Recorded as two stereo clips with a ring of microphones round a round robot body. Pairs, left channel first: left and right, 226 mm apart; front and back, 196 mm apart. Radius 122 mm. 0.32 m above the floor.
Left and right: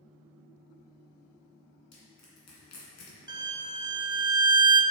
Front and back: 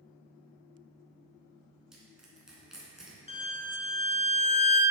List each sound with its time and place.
1.9 s crushing: 95° left, 2.5 m
3.3 s a violin: 30° right, 0.7 m